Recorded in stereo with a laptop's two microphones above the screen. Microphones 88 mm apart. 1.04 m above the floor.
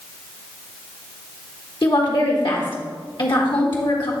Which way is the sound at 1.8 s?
70° left (ahead or behind).